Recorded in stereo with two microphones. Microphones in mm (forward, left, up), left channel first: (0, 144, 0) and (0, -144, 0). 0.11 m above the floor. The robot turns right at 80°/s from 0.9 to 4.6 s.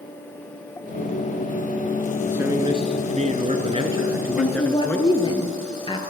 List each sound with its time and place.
2.3 s a man speaking: 5° right (ahead or behind), 1.3 m; by 5.4 s 5° left (ahead or behind), 1.3 m
4.4 s a woman speaking: 30° left (ahead or behind), 1.7 m; by 6.0 s 20° left (ahead or behind), 1.7 m